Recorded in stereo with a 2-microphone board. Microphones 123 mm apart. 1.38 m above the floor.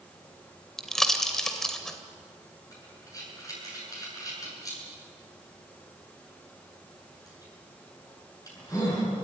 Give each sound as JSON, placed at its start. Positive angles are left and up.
{"t": 0.8, "sound": "a pop", "side_deg": 5, "distance_m": 2.0}
{"t": 2.7, "sound": "breathing", "side_deg": 30, "distance_m": 8.5}